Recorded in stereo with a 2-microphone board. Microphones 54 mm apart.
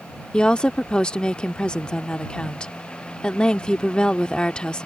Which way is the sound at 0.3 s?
15° left (ahead or behind).